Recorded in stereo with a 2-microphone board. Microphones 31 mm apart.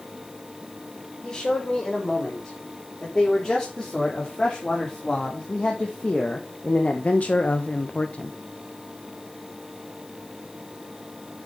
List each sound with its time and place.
1.2 s a man speaking: 25° left (ahead or behind), 5.5 m; by 8.3 s 35° left (ahead or behind), 1.0 m